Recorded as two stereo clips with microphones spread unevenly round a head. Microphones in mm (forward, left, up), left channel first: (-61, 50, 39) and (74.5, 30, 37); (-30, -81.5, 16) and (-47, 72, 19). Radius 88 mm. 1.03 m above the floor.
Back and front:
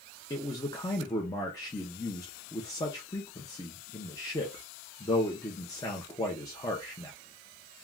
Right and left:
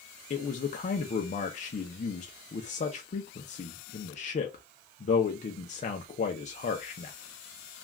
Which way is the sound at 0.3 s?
125° right.